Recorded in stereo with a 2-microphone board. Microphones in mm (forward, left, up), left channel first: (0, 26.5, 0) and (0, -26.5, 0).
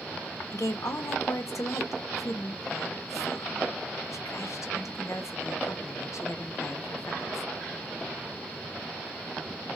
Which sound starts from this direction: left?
A woman speaking, at 0.5 s.